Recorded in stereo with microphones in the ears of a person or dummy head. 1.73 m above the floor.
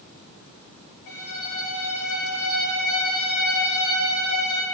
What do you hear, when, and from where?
1.1 s a violin: 45° left (ahead or behind), 2 m